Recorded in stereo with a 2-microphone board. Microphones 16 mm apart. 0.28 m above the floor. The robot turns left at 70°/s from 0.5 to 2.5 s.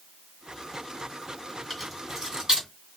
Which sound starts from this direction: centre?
Keys jangling, at 1.7 s.